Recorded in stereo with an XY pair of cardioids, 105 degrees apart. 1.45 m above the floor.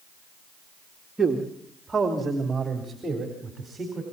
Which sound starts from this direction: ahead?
A man speaking, at 1.2 s.